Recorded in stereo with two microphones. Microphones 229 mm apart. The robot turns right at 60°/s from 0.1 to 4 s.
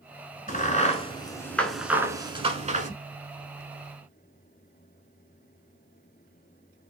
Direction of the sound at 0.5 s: 35° left (ahead or behind).